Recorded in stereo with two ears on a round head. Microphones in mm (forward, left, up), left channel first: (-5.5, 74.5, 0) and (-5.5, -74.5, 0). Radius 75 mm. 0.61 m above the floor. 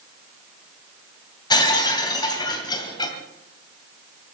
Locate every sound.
1.5 s breaking glass: 25° left (ahead or behind), 2.5 m